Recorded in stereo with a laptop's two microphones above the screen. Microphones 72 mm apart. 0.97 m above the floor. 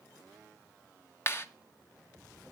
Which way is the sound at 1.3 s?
35° left (ahead or behind).